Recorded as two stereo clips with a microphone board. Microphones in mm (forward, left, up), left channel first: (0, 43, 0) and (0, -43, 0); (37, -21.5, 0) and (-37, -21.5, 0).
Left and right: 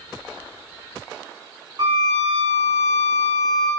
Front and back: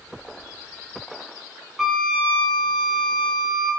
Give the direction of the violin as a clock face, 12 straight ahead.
3 o'clock.